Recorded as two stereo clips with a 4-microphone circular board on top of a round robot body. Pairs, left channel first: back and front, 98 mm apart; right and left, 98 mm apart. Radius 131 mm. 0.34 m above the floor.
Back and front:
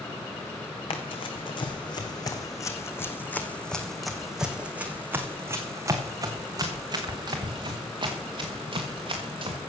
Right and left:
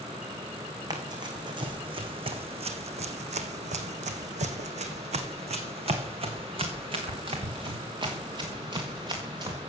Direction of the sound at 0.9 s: 145° left.